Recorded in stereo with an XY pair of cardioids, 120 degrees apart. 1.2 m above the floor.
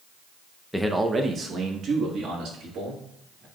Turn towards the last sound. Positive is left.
turn(degrees=-70)